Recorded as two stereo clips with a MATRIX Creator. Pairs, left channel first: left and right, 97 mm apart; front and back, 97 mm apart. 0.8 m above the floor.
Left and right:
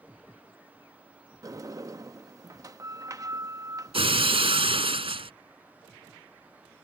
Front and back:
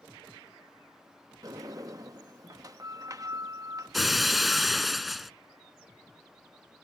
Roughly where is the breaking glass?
Right.